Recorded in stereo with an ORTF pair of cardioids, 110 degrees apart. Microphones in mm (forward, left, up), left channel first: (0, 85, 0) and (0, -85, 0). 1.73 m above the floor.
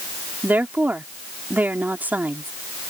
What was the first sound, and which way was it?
A woman speaking, 10° right.